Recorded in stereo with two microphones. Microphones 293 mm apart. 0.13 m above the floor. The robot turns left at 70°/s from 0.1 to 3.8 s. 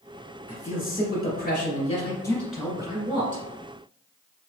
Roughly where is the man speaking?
Behind left.